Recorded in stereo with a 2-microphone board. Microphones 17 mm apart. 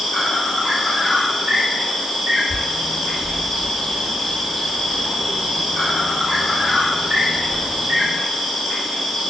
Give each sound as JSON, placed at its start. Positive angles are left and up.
{"t": 0.0, "sound": "an insect", "side_deg": -80, "distance_m": 1.1}
{"t": 2.5, "sound": "a bird", "side_deg": 25, "distance_m": 1.2}